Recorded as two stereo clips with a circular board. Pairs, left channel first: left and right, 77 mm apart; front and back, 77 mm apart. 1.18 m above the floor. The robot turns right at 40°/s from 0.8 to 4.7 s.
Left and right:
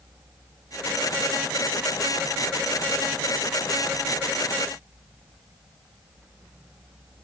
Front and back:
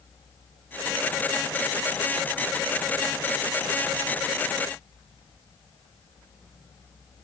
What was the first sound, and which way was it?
Only background noise.